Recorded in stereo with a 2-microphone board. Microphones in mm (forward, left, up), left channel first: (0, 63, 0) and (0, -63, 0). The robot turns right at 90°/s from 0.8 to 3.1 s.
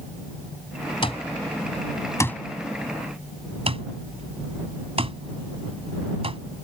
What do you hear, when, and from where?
1.0 s an alarm clock: 45° left (ahead or behind); by 6.4 s 50° right (ahead or behind)